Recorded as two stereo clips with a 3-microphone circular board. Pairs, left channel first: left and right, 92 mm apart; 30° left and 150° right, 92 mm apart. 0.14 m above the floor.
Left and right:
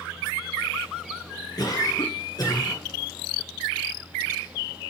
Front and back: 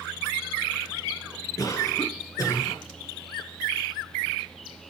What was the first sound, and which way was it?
A cough, 65° left.